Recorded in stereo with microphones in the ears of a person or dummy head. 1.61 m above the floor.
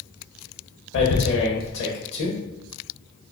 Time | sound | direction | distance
0.9 | tearing paper | 60° left (ahead or behind) | 0.7 m